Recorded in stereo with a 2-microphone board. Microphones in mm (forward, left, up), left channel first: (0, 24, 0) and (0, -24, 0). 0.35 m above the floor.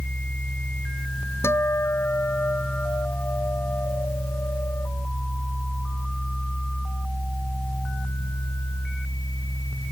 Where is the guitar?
60° left (ahead or behind).